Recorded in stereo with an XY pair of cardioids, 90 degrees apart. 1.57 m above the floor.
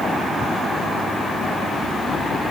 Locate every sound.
Only background noise.